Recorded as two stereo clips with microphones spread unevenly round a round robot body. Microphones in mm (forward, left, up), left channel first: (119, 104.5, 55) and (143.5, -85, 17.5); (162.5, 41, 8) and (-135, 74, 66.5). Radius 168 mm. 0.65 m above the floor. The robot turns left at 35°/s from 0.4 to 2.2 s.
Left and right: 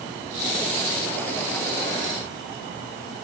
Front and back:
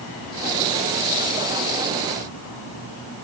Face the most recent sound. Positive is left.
No sound to turn to.